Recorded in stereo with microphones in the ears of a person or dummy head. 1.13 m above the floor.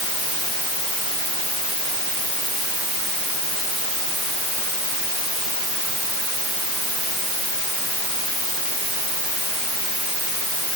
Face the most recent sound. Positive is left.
No sound to turn to.